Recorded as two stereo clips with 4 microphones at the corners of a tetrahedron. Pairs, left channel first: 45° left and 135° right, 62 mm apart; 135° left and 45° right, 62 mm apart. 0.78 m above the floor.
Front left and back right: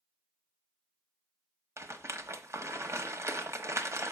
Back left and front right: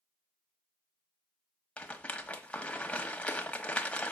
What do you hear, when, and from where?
1.8 s a rattle: 160° right, 1.0 m